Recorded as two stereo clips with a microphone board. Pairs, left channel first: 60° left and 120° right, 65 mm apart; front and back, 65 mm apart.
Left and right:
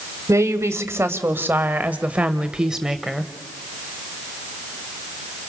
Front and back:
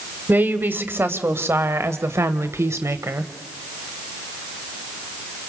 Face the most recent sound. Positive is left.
turn(degrees=155)